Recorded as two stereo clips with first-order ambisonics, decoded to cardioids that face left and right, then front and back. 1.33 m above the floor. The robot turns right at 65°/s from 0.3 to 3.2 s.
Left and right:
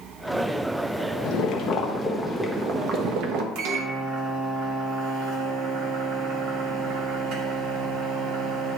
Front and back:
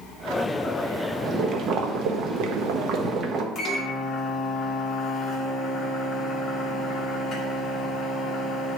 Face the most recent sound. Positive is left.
turn(degrees=-60)